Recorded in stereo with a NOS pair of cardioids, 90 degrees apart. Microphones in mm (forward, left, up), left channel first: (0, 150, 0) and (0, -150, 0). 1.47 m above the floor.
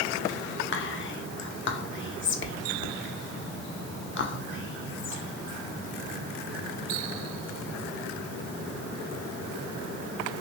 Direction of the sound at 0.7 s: 40° left.